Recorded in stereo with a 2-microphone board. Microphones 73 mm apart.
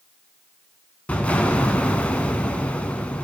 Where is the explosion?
20° left (ahead or behind), 0.6 m.